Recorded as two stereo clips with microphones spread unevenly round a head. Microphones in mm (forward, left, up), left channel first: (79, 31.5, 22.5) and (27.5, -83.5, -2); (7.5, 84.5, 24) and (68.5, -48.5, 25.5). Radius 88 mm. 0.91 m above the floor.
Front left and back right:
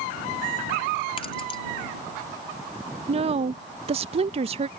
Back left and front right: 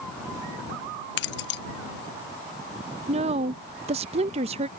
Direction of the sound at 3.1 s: 110° right.